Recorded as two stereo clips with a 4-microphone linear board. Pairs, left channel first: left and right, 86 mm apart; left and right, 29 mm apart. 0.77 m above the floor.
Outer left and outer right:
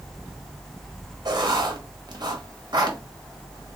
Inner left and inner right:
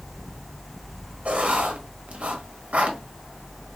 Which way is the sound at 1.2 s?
50° right (ahead or behind).